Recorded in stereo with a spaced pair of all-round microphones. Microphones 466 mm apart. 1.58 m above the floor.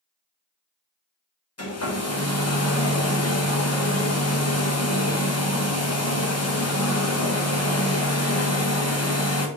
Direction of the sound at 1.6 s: 35° left (ahead or behind).